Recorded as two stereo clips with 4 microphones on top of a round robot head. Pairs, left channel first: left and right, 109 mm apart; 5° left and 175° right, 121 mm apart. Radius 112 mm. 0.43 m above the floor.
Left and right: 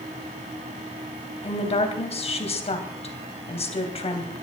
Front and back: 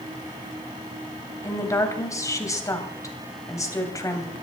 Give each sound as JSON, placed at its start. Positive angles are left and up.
{"t": 1.4, "sound": "a woman speaking", "azimuth_deg": 70, "distance_m": 3.0}